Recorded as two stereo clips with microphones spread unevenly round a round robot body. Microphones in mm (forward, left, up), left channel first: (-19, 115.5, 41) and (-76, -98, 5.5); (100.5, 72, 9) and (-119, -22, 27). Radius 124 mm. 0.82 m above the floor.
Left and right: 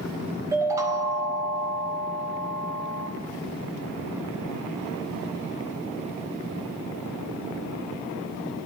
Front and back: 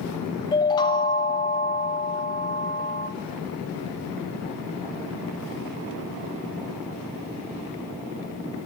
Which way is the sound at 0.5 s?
40° right.